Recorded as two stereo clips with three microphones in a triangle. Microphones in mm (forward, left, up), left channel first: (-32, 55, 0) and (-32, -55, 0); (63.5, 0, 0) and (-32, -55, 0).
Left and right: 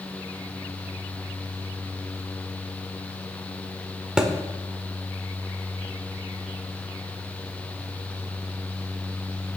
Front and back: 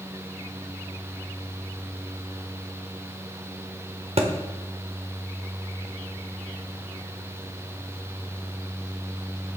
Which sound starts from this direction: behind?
A thud, at 4.2 s.